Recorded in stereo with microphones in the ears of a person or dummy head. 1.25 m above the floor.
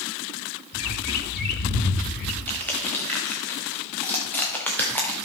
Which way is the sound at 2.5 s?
10° left (ahead or behind).